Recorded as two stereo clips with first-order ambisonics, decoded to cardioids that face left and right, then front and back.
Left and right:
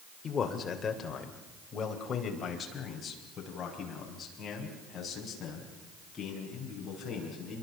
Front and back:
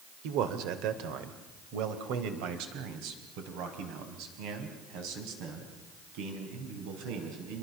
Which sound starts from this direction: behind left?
A man speaking, at 0.2 s.